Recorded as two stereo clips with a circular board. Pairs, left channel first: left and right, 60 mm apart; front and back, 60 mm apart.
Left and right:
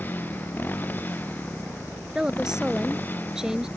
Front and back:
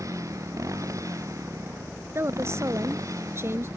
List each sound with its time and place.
0.0 s a motorcycle: 150° left
2.1 s a woman speaking: 165° right